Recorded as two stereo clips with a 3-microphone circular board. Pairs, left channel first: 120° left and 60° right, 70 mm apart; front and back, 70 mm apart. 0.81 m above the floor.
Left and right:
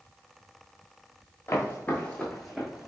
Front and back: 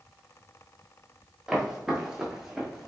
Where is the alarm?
I don't hear an alarm.